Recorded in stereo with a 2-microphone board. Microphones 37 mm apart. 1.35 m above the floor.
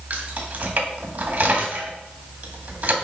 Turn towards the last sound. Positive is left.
turn(degrees=-55)  # may be behind; listen again after turning